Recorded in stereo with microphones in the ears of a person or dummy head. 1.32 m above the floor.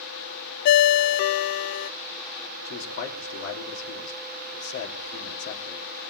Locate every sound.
0.7 s a ringtone: 60° left (ahead or behind), 0.6 m
2.6 s a man speaking: 65° left (ahead or behind), 3.5 m